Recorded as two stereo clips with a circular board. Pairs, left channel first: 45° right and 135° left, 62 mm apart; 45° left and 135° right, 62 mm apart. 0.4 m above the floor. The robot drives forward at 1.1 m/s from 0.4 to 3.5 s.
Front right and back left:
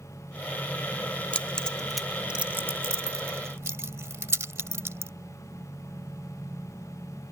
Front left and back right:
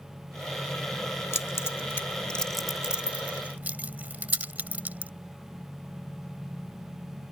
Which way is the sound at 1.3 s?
20° left.